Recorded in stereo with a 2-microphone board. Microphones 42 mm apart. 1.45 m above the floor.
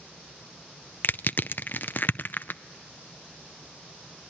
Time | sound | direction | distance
1.0 | crushing | 50° left (ahead or behind) | 0.5 m